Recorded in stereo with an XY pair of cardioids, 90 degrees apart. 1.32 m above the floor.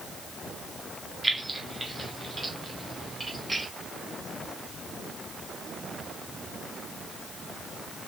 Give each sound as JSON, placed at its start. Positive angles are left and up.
{"t": 1.2, "sound": "keys jangling", "azimuth_deg": -20, "distance_m": 1.9}